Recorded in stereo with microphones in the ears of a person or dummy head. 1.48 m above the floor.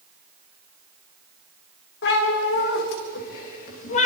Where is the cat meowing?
75° left (ahead or behind), 3 m; by 4.1 s 45° left (ahead or behind), 2 m.